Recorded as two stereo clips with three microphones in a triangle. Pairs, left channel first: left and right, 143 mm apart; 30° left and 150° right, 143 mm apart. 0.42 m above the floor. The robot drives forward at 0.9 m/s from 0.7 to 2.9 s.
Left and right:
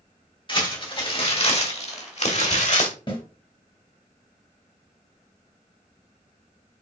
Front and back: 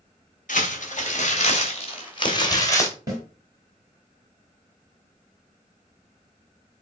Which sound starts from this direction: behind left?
A snare drum, at 3.1 s.